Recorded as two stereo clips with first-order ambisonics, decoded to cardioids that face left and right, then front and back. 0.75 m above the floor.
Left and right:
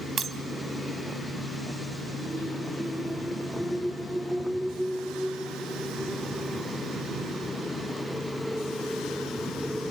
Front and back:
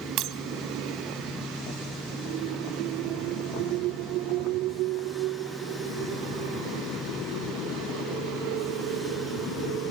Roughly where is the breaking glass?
Behind right.